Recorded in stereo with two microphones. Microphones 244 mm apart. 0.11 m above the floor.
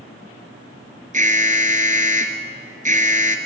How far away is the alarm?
About 1.4 m.